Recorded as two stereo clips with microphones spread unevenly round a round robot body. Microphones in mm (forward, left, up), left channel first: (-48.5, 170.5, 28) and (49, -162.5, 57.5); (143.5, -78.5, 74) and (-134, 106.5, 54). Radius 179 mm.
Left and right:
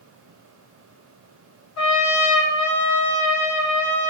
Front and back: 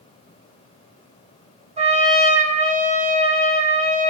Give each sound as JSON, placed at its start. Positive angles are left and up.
{"t": 1.8, "sound": "a trumpet", "azimuth_deg": 80, "distance_m": 1.3}